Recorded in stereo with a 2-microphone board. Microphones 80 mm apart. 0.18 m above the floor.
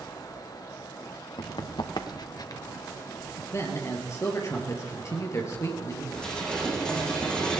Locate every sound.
1.4 s running footsteps: 75° left (ahead or behind), 1.7 m; by 2.6 s 50° left (ahead or behind), 1.4 m
3.5 s a man speaking: 40° left (ahead or behind), 3.5 m
6.2 s dishes clattering: 10° left (ahead or behind), 6 m